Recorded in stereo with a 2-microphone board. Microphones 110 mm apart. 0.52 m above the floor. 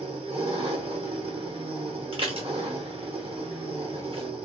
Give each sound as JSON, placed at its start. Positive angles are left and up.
{"t": 0.0, "sound": "an engine running", "side_deg": -55, "distance_m": 0.9}
{"t": 2.1, "sound": "dishes clattering", "side_deg": -50, "distance_m": 0.9}